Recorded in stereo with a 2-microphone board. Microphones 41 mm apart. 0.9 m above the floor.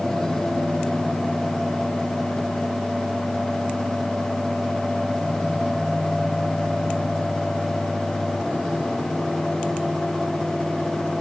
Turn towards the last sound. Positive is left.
No sound to turn to.